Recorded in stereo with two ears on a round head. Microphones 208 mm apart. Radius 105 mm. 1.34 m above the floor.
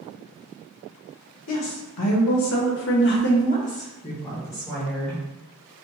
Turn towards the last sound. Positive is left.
turn(degrees=5)  # may be behind; listen again after turning